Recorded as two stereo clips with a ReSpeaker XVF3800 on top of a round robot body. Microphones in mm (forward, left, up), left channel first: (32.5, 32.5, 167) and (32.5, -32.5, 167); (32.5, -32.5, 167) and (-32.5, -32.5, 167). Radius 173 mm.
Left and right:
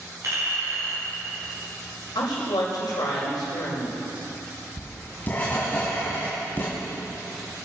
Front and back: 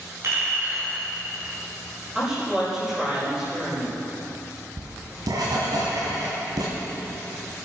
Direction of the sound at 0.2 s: 135° right.